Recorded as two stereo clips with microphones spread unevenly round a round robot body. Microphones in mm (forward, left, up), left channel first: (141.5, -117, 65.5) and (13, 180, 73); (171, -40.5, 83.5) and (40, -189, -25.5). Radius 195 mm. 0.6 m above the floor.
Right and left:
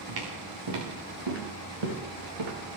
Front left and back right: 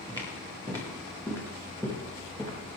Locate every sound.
0.1 s footsteps: 150° left, 6.5 m; by 2.5 s 135° left, 6 m